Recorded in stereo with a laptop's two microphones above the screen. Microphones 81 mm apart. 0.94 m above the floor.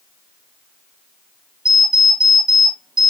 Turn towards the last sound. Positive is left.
turn(degrees=-80)